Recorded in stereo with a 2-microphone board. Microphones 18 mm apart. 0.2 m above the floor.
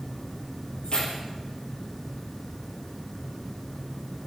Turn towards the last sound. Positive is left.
turn(degrees=50)  # may be behind; listen again after turning